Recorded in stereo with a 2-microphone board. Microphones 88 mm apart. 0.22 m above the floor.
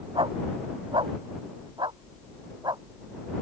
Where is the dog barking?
80° right; by 2.8 s 55° right (ahead or behind).